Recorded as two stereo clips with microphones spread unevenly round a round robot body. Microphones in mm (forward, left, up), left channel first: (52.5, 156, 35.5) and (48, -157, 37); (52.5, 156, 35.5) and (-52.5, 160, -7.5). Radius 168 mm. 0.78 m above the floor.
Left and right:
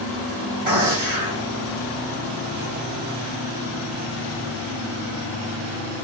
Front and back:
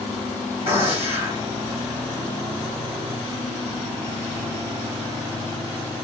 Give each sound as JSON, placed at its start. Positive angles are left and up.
{"t": 0.7, "sound": "a gunshot", "azimuth_deg": -155, "distance_m": 1.3}